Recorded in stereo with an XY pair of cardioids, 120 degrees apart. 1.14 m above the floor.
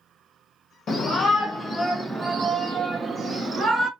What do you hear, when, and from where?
0.9 s a shout: 45° left, 0.8 m; by 3.9 s 35° right, 1.5 m